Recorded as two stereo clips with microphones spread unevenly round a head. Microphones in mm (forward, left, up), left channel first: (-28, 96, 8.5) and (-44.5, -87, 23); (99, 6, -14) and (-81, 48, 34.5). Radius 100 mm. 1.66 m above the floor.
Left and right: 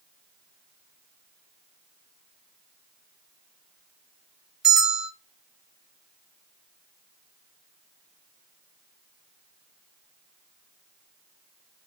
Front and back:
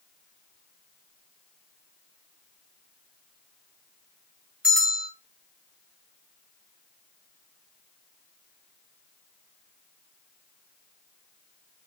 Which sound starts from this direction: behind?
A bell, at 4.6 s.